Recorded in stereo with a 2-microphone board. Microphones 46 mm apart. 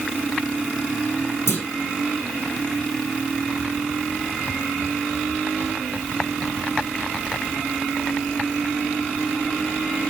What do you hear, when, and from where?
1.5 s a clunk: 75° left (ahead or behind), 5 m